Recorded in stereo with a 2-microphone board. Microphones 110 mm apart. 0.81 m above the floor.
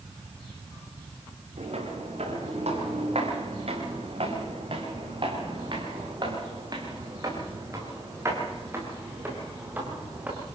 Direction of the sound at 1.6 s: 75° right (ahead or behind).